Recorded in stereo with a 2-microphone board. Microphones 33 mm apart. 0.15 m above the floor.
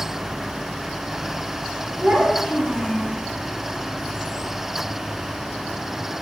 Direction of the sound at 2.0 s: 20° right (ahead or behind).